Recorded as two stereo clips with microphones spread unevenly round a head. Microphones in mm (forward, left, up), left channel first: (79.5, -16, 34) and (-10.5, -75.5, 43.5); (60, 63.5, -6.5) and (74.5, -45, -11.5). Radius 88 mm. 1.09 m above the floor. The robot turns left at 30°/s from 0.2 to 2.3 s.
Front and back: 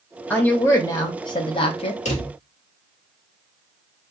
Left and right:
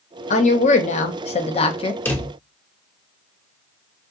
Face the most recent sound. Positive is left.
turn(degrees=25)